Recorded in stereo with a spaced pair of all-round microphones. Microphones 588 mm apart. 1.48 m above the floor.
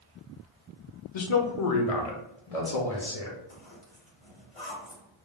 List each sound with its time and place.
1.1 s a man speaking: 50° left (ahead or behind), 0.5 m; by 3.4 s 70° left (ahead or behind), 1.4 m
3.5 s a zipper: 55° left (ahead or behind), 1.5 m